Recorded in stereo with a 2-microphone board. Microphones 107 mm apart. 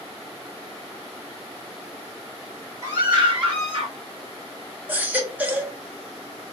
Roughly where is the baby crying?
Centre.